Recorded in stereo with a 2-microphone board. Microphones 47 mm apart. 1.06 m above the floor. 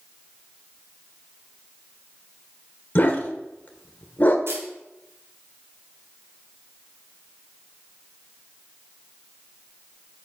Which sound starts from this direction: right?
A camera shutter, at 4.5 s.